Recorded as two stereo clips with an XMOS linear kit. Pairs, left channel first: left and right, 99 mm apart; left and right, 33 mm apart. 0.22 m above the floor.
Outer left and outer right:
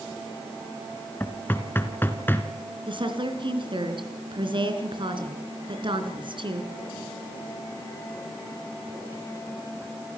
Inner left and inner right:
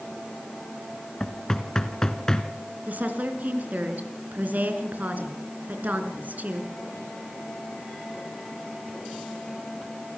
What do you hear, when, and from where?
1.2 s knocking: 20° left (ahead or behind), 1.7 m
2.9 s a woman speaking: 55° right (ahead or behind), 3.5 m